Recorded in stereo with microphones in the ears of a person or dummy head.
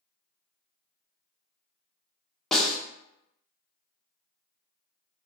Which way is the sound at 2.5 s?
5° left (ahead or behind).